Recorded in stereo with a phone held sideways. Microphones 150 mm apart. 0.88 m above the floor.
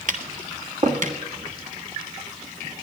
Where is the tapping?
60° right (ahead or behind), 1.4 m.